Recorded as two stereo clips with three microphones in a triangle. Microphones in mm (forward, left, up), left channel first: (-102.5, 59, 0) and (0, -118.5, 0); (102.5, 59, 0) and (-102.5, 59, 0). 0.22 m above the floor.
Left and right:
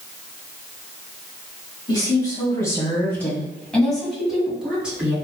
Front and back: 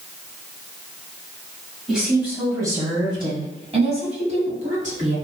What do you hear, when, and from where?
1.9 s a woman speaking: 95° left, 1.5 m; by 5.2 s 140° right, 2.5 m